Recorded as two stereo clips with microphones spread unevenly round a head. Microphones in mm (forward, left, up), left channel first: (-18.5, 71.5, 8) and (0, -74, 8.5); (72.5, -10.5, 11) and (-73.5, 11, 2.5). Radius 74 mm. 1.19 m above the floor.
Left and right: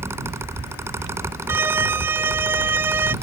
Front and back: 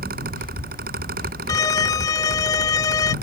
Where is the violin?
30° right.